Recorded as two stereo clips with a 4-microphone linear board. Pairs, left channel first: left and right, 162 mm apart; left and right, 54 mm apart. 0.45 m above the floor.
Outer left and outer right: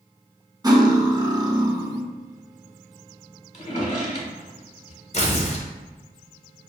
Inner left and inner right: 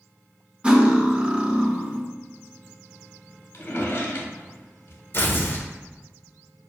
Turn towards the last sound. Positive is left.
turn(degrees=45)  # may be behind; listen again after turning